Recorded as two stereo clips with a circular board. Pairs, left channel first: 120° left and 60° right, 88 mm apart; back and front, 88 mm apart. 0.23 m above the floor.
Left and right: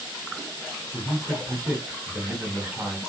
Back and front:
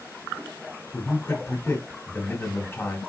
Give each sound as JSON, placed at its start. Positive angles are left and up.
{"t": 0.9, "sound": "a man speaking", "azimuth_deg": -135, "distance_m": 1.4}